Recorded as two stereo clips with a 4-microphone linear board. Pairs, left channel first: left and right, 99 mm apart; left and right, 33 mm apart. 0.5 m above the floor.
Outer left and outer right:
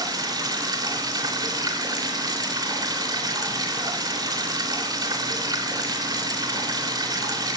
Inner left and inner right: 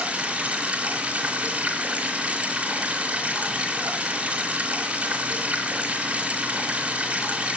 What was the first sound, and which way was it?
Running water, 40° right (ahead or behind).